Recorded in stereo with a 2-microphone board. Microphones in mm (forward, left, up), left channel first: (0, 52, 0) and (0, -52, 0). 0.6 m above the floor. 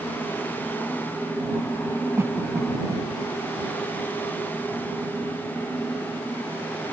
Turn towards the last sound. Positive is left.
turn(degrees=-25)  # may be behind; listen again after turning